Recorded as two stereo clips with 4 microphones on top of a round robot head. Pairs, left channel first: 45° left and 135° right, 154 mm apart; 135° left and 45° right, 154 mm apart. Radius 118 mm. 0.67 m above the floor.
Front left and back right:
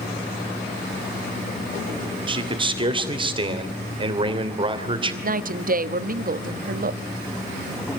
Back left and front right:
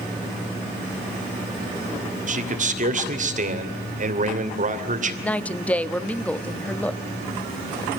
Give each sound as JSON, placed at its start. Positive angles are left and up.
{"t": 2.3, "sound": "a man speaking", "azimuth_deg": -80, "distance_m": 2.5}
{"t": 5.2, "sound": "a woman speaking", "azimuth_deg": -145, "distance_m": 1.1}